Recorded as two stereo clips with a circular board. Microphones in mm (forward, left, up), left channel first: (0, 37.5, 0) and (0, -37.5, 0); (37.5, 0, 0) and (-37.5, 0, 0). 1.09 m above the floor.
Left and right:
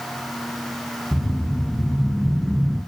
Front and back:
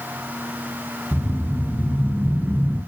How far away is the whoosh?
About 0.9 m.